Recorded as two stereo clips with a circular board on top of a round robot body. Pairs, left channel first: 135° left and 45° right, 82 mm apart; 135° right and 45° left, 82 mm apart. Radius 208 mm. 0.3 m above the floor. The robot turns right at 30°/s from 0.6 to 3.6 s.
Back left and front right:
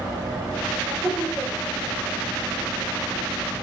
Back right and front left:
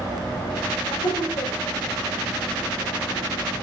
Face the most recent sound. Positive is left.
turn(degrees=-50)